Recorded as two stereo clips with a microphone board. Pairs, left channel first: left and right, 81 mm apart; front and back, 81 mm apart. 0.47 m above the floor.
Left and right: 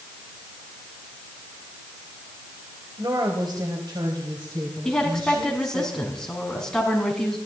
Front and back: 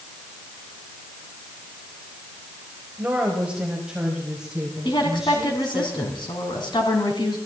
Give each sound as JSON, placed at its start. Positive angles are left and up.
{"t": 3.0, "sound": "a woman speaking", "azimuth_deg": -110, "distance_m": 2.5}
{"t": 4.8, "sound": "a woman speaking", "azimuth_deg": 10, "distance_m": 4.0}